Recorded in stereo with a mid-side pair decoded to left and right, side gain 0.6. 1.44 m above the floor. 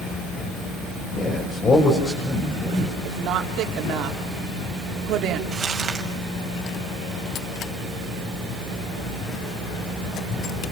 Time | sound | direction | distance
1.1 | a man speaking | 35° left | 7 m
3.0 | a woman speaking | 60° right | 4.5 m
5.5 | crumpling | 30° right | 7 m